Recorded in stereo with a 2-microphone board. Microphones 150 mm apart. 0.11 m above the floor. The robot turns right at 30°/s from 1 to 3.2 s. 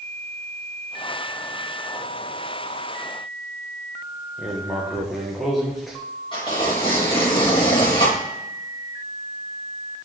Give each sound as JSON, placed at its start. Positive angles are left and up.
{"t": 4.4, "sound": "writing", "side_deg": 0, "distance_m": 3.5}
{"t": 6.3, "sound": "tearing paper", "side_deg": 35, "distance_m": 5.5}